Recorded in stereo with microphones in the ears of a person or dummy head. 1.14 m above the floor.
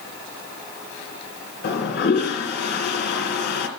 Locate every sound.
1.6 s a toilet flushing: 65° left (ahead or behind), 2.5 m